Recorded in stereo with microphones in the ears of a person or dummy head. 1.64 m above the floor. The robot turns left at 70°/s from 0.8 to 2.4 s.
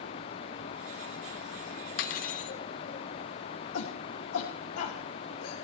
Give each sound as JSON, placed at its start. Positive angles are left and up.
{"t": 2.0, "sound": "cutlery clinking", "side_deg": 50, "distance_m": 1.3}
{"t": 3.7, "sound": "a shout", "side_deg": 65, "distance_m": 2.5}